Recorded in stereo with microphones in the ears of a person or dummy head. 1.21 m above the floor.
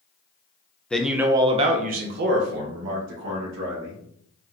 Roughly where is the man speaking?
Centre.